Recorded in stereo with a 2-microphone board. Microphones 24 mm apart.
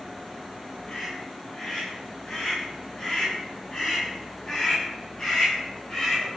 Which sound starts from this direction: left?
A scream, at 0.9 s.